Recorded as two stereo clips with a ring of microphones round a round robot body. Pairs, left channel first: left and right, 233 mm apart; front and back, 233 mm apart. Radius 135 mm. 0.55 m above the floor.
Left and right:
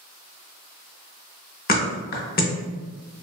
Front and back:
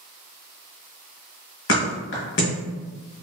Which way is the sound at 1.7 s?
40° left.